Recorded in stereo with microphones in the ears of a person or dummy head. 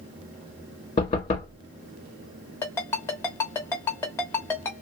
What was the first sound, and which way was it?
Knocking, 30° left (ahead or behind).